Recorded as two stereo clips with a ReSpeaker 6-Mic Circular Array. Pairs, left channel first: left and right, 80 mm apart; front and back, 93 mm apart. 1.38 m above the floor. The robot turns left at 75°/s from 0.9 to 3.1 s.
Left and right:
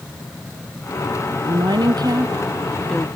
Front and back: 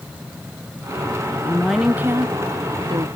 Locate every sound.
1.4 s a woman speaking: 70° right, 1.1 m; by 3.1 s 170° left, 1.1 m